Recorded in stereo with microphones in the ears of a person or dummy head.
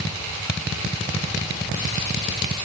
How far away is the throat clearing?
I don't hear throat clearing.